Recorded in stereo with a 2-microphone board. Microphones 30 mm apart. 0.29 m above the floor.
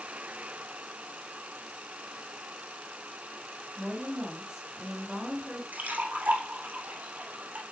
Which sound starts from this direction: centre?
A woman speaking, at 3.8 s.